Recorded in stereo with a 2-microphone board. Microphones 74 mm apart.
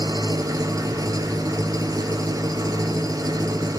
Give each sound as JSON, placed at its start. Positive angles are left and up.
{"t": 0.0, "sound": "an engine running", "side_deg": -65, "distance_m": 1.2}